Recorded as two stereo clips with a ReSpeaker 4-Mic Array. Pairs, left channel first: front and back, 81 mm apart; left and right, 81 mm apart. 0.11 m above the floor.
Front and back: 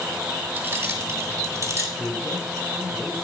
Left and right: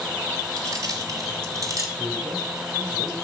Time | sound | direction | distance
0.6 | keys jangling | 125° right | 1.8 m
2.0 | a man speaking | 60° right | 2 m